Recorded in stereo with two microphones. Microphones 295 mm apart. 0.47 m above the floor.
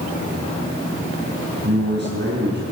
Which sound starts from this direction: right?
A man speaking, at 1.6 s.